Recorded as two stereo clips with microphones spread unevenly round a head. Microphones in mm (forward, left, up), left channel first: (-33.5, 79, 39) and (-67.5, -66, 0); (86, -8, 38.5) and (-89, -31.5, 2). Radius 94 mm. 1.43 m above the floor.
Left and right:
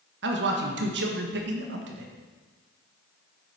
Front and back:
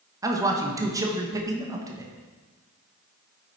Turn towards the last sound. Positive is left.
turn(degrees=-100)